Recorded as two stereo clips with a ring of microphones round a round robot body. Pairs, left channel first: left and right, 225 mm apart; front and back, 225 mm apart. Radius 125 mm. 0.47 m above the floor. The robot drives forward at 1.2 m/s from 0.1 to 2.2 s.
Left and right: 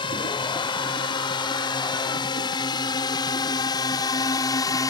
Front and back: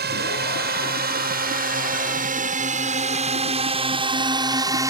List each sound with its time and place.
0.0 s a drone: 155° left; by 4.9 s 130° left